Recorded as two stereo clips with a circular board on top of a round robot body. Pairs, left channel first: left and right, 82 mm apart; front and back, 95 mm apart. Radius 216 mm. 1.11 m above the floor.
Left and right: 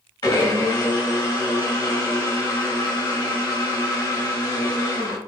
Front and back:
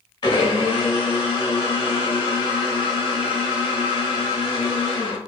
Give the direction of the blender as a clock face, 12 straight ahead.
10 o'clock.